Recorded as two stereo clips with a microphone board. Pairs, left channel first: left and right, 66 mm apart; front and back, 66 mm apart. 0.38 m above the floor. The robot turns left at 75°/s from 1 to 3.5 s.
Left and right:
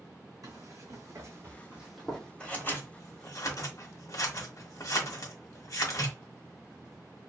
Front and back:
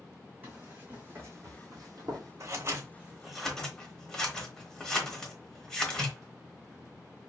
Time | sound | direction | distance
0.4 | running footsteps | 115° right | 1.9 m
2.4 | scissors | 160° left | 1.0 m